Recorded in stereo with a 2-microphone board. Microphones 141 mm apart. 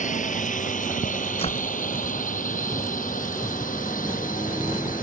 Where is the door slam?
45° left (ahead or behind).